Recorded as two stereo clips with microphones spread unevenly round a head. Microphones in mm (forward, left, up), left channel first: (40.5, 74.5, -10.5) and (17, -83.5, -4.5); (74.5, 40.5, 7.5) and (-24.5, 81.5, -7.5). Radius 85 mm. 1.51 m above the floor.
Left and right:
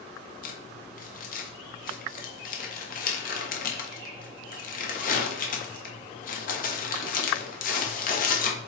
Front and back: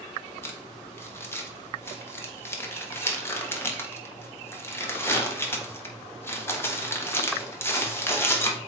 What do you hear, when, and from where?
0.4 s crumpling: 45° left, 1.5 m